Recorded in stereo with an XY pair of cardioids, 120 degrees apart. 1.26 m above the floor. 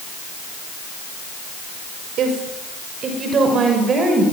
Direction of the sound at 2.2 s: 60° right.